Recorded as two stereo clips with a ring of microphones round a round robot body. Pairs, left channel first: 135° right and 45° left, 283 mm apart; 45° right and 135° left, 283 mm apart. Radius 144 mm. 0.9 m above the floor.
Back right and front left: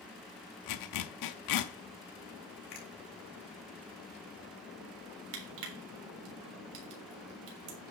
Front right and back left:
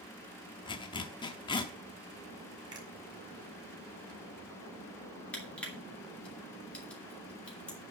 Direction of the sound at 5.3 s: 40° left.